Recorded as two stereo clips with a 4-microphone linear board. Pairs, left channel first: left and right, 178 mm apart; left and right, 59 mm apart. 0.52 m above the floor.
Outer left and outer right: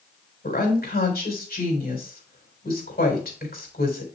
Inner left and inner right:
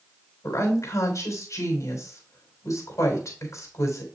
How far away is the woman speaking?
About 3.5 m.